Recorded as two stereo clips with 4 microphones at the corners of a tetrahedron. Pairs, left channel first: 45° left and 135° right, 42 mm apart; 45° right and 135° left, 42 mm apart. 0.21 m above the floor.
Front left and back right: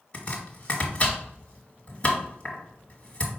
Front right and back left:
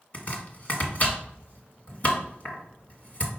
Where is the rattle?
No rattle in this recording.